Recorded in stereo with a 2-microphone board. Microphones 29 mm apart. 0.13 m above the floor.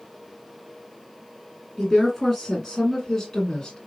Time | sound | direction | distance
1.8 | a woman speaking | 5° left (ahead or behind) | 1.8 m